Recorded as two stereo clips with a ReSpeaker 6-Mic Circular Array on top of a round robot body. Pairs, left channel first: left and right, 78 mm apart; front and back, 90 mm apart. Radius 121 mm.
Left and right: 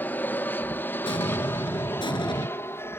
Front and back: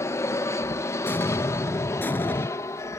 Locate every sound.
0.0 s an aircraft: 35° left; by 3.0 s 45° left
1.1 s an explosion: 70° left